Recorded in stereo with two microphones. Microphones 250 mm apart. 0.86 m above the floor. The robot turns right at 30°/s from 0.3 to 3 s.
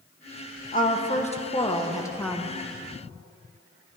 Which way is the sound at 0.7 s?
120° left.